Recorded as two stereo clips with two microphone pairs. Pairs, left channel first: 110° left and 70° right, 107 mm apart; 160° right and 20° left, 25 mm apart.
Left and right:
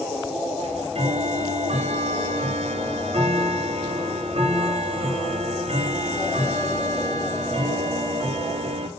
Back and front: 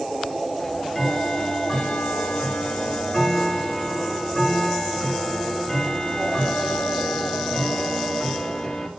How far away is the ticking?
About 0.6 m.